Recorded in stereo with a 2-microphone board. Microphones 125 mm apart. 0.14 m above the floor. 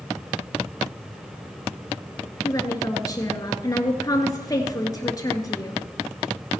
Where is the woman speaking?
30° left (ahead or behind), 1.9 m.